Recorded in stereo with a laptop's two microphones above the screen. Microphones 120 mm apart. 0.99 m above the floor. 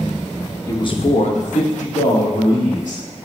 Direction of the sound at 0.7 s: 25° left (ahead or behind).